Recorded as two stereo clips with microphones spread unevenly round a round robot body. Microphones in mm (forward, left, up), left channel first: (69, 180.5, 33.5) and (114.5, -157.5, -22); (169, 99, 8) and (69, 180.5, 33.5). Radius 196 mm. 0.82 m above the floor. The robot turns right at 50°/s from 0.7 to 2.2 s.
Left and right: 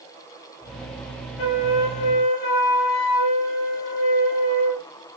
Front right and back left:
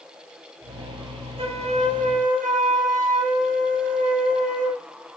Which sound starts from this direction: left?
A flute, at 1.4 s.